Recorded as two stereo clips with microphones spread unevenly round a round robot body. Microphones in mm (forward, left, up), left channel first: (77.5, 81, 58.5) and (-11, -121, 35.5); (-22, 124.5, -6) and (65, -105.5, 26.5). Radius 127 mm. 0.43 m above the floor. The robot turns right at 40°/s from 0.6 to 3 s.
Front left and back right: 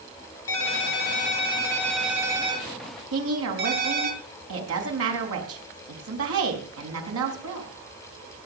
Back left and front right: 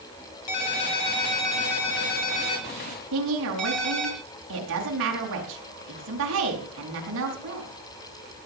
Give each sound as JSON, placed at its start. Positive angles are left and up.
{"t": 0.5, "sound": "a ringtone", "azimuth_deg": 100, "distance_m": 4.0}
{"t": 3.1, "sound": "a woman speaking", "azimuth_deg": -115, "distance_m": 5.0}